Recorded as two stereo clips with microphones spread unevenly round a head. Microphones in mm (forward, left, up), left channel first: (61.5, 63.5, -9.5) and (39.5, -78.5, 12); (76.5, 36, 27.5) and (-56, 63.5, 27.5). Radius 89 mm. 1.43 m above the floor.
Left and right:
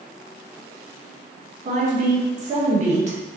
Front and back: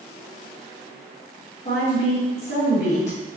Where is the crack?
I don't hear a crack.